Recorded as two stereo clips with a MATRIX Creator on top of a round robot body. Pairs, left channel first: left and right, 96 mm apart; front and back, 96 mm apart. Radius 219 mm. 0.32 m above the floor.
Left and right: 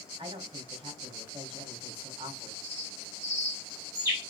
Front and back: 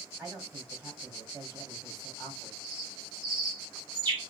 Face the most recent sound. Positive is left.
turn(degrees=-150)